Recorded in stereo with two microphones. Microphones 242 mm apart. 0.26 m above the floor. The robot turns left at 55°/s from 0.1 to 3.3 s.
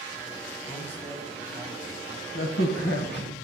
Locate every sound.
0.7 s a man speaking: 10° right (ahead or behind), 1.5 m; by 2.2 s 15° right (ahead or behind), 1.5 m
2.4 s a crack: 100° left, 1.0 m; by 3.3 s 45° left, 1.0 m